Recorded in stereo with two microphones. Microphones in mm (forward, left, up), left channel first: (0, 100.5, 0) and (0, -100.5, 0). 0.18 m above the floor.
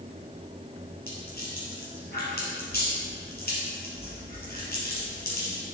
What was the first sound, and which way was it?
A rattle, 50° left (ahead or behind).